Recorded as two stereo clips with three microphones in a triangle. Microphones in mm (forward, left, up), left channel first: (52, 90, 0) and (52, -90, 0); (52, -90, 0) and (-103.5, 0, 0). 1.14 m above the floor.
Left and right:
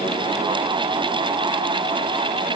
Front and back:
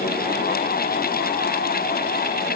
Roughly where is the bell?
No bell in this recording.